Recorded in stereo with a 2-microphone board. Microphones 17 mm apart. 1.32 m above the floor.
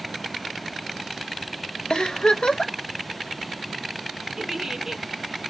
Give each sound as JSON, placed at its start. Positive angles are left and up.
{"t": 1.9, "sound": "a giggle", "side_deg": 70, "distance_m": 0.5}
{"t": 4.4, "sound": "a giggle", "side_deg": -30, "distance_m": 0.7}